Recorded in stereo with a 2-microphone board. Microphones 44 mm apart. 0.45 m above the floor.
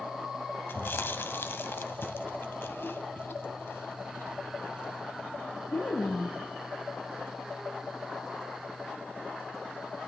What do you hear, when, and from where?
0.7 s chewing: 55° left (ahead or behind), 0.9 m